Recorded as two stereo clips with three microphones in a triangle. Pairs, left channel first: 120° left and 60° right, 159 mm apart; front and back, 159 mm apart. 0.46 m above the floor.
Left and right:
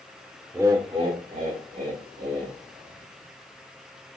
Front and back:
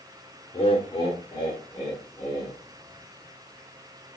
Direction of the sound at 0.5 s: Straight ahead.